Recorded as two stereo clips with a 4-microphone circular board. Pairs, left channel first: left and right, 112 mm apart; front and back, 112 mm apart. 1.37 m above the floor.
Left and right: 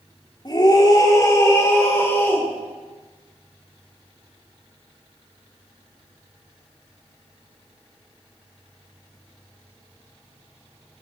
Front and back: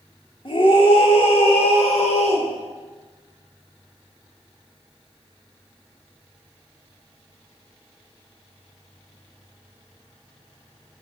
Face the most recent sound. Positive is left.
turn(degrees=15)